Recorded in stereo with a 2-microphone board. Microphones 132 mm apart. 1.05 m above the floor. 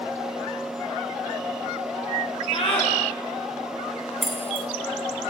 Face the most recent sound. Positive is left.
turn(degrees=0)  # may be behind; listen again after turning